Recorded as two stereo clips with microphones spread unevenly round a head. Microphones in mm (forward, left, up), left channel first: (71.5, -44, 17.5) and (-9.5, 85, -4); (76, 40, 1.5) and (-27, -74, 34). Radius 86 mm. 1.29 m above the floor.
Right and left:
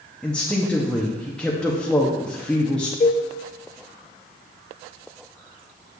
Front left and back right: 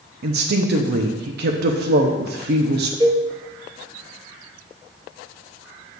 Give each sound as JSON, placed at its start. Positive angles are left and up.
{"t": 0.2, "sound": "a woman speaking", "azimuth_deg": -150, "distance_m": 0.6}
{"t": 3.0, "sound": "a cowbell", "azimuth_deg": -85, "distance_m": 0.8}